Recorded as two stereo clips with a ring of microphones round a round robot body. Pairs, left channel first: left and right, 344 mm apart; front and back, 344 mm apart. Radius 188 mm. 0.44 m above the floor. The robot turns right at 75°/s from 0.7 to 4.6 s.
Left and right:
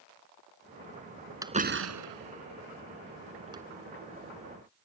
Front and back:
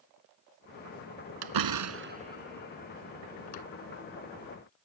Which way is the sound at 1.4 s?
170° right.